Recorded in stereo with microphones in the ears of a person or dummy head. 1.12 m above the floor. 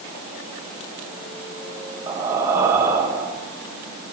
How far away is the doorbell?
No doorbell in this recording.